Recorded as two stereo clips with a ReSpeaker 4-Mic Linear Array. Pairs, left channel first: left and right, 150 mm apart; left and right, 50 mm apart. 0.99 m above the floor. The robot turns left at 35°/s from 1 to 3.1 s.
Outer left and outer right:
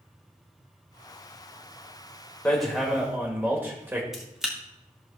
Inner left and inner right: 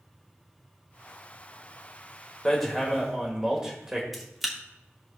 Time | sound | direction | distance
2.5 | hammering | 10° left (ahead or behind) | 1.7 m
4.1 | a camera shutter | centre (ahead or behind) | 1.5 m